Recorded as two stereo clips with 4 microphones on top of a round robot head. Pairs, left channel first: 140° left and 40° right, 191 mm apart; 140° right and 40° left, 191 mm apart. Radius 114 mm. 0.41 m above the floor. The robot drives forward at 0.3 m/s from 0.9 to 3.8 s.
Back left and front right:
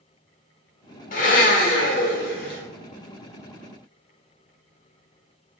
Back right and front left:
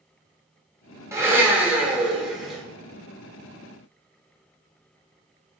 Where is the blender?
115° left, 1.4 m; by 2.6 s 130° left, 1.5 m.